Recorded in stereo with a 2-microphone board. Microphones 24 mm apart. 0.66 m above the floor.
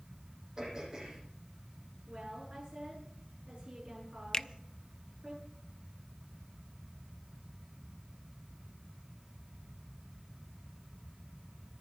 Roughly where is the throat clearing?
Right.